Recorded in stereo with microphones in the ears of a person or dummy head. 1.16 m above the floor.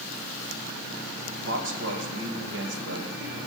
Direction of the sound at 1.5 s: 65° right (ahead or behind).